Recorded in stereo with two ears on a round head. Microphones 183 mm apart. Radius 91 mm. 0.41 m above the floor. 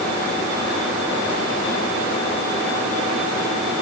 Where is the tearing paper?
I don't hear tearing paper.